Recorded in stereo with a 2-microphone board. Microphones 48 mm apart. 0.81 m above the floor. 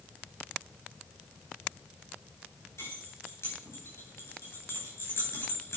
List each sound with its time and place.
2.8 s keys jangling: 75° left (ahead or behind), 9.5 m